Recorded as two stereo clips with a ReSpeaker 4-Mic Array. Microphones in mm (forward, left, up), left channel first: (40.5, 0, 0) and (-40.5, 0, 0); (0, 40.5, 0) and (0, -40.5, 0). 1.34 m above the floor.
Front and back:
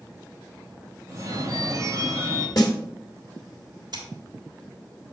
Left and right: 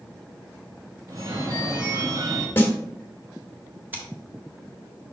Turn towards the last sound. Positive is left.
turn(degrees=-155)